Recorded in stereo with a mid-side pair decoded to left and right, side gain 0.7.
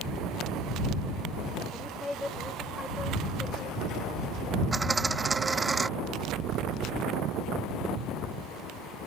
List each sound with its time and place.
1.7 s a woman speaking: 10° left
4.7 s a dropped coin: 15° right